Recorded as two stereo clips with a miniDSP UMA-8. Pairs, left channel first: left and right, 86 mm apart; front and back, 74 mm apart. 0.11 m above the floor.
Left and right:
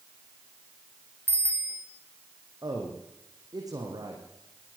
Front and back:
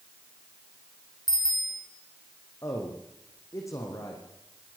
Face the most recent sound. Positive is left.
turn(degrees=-45)